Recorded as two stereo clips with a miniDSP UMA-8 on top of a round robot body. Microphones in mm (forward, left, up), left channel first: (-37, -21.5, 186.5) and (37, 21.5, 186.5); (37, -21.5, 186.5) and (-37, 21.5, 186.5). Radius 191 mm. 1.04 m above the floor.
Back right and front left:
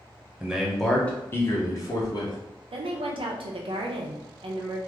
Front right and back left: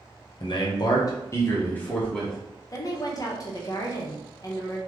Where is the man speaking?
50° right, 0.9 m; by 2.4 s 110° right, 1.2 m.